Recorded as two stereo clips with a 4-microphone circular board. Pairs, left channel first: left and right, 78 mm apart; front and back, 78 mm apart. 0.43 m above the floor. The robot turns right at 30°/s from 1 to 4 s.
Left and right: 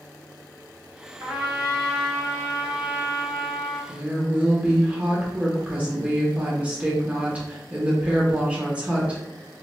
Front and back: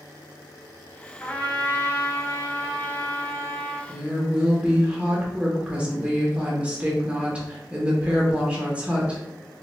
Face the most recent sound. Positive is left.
turn(degrees=-135)